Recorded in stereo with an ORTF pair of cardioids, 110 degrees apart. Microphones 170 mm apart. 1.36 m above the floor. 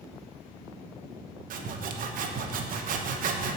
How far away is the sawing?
About 0.9 m.